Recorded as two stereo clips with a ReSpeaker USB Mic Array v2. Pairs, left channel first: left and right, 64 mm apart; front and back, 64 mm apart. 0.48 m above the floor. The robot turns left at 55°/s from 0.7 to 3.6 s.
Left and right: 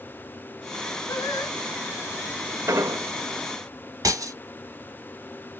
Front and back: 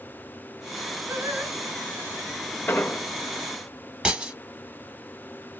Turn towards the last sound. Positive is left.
turn(degrees=-105)